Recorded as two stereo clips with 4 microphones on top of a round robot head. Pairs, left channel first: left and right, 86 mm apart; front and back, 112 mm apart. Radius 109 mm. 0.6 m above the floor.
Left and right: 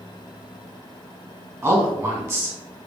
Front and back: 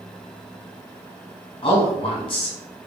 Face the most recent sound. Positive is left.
turn(degrees=-35)